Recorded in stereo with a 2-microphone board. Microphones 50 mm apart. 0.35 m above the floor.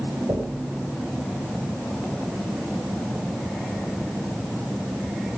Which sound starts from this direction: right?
Knocking, at 0.3 s.